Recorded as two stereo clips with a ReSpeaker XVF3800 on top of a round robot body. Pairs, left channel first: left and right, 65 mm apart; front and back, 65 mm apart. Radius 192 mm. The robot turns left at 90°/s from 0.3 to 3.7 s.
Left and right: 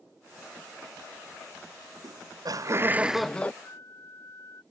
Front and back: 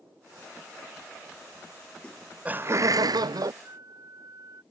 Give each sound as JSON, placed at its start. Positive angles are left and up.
{"t": 2.0, "sound": "laughter", "azimuth_deg": -75}
{"t": 3.6, "sound": "a flute", "azimuth_deg": 140}